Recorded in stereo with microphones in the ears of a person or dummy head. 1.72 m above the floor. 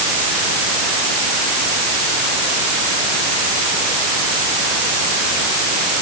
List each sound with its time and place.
Only background noise.